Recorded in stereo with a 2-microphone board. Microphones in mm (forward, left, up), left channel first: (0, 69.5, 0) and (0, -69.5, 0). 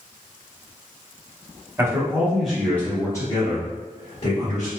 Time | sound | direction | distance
1.8 | a man speaking | 20° right (ahead or behind) | 0.9 m